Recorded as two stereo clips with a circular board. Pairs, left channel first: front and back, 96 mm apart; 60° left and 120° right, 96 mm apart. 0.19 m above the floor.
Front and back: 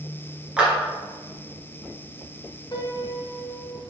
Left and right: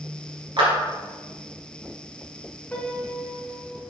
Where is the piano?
15° right, 1.2 m.